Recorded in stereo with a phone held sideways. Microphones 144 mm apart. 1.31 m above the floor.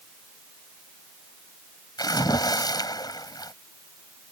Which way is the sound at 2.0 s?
30° left (ahead or behind).